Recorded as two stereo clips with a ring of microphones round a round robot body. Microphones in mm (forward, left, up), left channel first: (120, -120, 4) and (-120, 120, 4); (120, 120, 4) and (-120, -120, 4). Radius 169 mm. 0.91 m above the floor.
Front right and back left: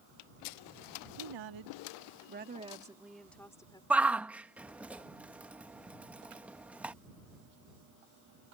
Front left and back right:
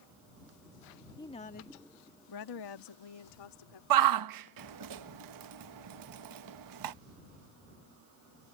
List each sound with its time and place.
1.2 s a woman speaking: 125° left; by 3.8 s 35° left
3.9 s a shout: 140° right